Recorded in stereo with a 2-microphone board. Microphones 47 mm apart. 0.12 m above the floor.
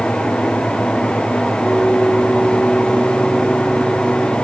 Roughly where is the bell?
Left.